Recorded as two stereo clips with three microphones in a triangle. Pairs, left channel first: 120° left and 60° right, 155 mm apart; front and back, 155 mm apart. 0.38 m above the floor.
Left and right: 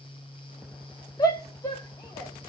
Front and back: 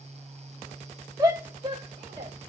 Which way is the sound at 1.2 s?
145° left.